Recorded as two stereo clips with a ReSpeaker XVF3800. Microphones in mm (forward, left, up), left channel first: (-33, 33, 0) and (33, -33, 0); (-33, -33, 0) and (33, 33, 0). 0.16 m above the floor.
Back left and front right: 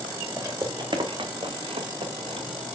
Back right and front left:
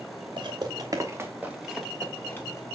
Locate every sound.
0.4 s footsteps: 15° left, 2 m; by 2.6 s 75° right, 2.5 m